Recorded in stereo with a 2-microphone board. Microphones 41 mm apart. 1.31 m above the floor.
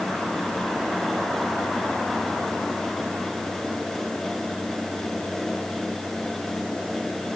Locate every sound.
Only background noise.